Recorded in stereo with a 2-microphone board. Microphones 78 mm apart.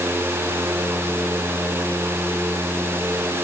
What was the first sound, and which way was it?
Only background noise.